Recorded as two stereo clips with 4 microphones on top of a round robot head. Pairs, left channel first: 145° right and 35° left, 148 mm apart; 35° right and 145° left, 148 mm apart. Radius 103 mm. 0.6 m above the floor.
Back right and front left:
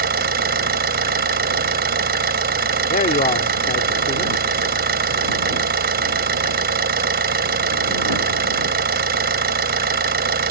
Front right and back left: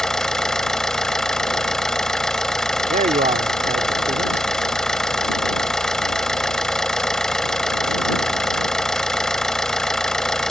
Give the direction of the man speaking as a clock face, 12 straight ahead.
6 o'clock.